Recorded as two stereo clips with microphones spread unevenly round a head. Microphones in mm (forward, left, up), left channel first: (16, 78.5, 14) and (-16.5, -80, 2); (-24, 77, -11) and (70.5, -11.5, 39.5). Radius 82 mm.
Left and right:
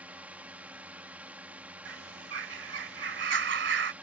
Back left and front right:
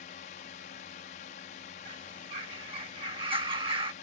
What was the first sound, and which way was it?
A drone, 175° left.